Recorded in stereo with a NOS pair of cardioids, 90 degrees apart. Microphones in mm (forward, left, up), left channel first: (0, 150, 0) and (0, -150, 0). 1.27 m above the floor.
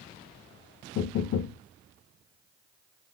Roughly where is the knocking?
Ahead left.